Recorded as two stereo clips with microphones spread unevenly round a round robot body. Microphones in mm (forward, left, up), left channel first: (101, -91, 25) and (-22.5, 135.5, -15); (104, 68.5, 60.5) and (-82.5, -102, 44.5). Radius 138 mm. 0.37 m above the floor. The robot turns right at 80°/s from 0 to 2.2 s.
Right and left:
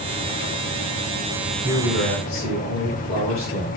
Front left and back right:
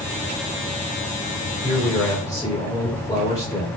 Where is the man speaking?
80° right, 2 m; by 3.7 s 30° right, 2 m.